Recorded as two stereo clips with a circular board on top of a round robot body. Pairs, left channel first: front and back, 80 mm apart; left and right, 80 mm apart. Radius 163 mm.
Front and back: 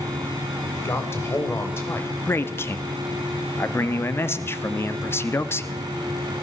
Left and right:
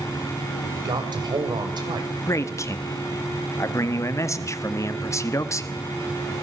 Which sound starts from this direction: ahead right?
A man speaking, at 0.6 s.